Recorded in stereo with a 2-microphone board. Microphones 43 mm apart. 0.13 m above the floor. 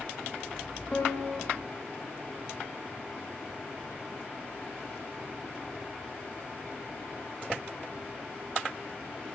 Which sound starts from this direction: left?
A piano, at 0.9 s.